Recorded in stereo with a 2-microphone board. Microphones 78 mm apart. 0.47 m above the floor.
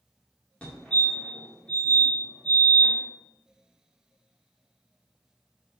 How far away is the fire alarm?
About 2.0 m.